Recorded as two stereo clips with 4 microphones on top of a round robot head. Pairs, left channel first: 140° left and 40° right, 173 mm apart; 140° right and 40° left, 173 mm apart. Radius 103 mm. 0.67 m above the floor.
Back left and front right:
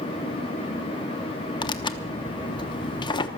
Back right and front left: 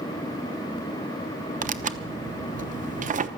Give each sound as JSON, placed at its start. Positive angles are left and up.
{"t": 1.6, "sound": "tearing paper", "azimuth_deg": 75, "distance_m": 0.9}